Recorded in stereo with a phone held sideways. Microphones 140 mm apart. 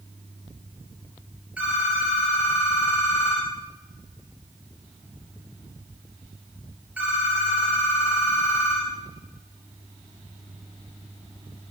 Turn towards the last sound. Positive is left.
turn(degrees=-10)  # may be behind; listen again after turning